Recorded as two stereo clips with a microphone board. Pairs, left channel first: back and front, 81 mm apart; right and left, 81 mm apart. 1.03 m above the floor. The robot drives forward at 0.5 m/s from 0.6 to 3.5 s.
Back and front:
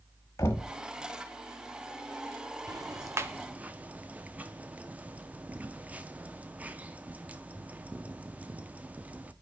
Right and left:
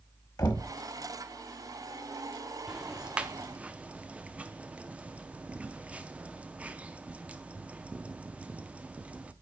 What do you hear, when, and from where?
0.4 s knocking: 125° right, 1.1 m; by 0.7 s 130° right, 1.1 m
2.7 s ticking: 15° left, 0.7 m; by 9.3 s 40° left, 0.5 m